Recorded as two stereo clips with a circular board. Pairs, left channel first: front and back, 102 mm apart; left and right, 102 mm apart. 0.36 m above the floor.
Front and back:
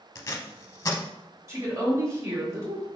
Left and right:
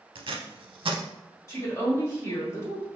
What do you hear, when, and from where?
0.1 s tape being pulled: 60° right, 0.6 m
1.5 s a woman speaking: 135° left, 1.3 m